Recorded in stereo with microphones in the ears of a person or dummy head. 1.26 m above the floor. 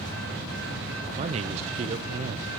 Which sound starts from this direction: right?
A man speaking, at 1.2 s.